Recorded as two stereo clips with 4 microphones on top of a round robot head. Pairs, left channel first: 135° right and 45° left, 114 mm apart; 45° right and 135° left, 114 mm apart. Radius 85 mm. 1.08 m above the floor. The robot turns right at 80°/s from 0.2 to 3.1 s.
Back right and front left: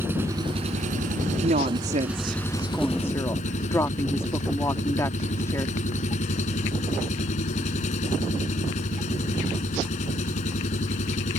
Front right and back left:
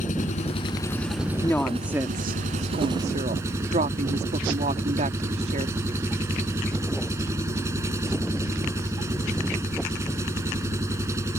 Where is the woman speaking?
20° left; by 5.8 s 155° left.